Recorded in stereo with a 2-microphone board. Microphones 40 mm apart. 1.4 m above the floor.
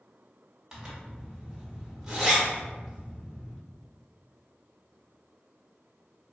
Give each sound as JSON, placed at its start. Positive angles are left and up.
{"t": 0.7, "sound": "a zipper", "side_deg": -10, "distance_m": 0.9}